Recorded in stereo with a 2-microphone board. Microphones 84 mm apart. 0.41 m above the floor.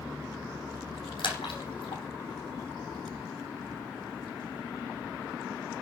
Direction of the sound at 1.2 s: 75° left (ahead or behind).